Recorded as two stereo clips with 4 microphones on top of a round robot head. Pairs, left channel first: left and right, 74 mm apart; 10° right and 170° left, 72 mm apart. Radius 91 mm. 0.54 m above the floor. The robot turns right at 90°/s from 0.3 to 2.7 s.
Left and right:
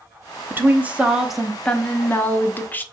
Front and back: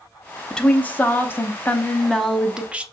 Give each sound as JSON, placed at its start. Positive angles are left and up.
{"t": 0.5, "sound": "a woman speaking", "azimuth_deg": -80, "distance_m": 0.7}